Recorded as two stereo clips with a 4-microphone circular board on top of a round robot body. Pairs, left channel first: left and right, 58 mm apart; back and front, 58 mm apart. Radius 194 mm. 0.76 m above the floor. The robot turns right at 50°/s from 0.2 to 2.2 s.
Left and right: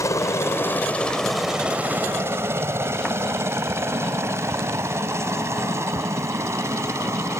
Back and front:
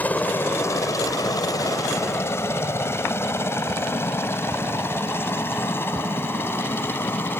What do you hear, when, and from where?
0.0 s a helicopter: 115° left; by 7.4 s 130° right